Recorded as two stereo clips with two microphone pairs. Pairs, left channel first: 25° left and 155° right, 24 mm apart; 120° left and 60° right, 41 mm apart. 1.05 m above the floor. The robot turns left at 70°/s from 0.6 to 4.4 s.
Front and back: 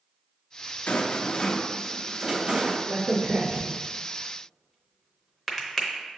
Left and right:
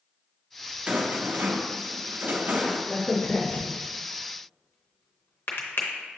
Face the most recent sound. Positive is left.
turn(degrees=105)